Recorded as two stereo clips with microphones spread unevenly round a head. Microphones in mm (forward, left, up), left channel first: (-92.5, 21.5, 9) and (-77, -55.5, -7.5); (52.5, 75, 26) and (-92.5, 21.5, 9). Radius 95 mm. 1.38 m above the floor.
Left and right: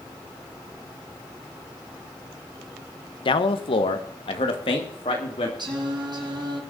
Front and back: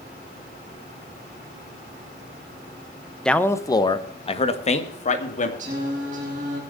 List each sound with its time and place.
3.2 s a man speaking: 105° left, 1.0 m; by 5.5 s 60° left, 2.5 m
5.6 s singing: 105° right, 5 m